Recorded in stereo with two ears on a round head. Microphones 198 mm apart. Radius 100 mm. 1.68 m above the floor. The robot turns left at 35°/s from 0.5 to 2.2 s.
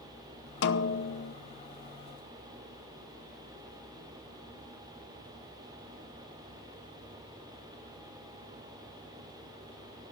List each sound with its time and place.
0.6 s a snare drum: 55° left (ahead or behind), 0.8 m; by 1.4 s 45° left (ahead or behind), 0.8 m